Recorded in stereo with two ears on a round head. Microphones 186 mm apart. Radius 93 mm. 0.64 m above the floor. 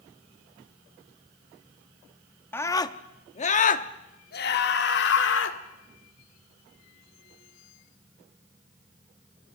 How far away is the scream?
About 0.9 m.